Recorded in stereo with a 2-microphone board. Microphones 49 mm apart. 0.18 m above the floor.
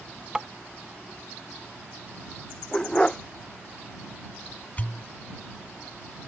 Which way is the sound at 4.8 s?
35° left (ahead or behind).